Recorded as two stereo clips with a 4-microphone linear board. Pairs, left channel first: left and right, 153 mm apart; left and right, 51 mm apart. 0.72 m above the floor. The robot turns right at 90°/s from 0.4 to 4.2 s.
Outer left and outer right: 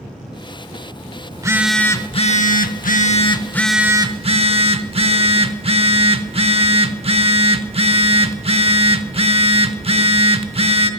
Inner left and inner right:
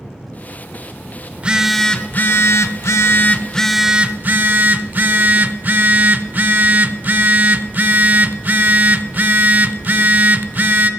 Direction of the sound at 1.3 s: 35° right.